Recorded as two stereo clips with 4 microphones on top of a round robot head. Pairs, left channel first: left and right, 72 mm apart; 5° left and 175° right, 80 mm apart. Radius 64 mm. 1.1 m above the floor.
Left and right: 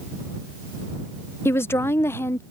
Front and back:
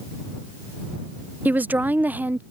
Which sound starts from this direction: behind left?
A woman speaking, at 1.4 s.